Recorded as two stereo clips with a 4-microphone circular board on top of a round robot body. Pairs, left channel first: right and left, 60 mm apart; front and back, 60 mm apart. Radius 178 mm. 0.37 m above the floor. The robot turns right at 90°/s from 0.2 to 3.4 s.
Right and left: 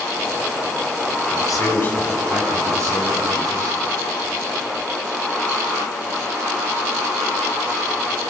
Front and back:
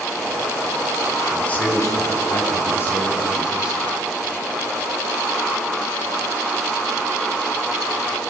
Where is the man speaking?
80° right, 5 m; by 3.7 s 105° left, 5 m.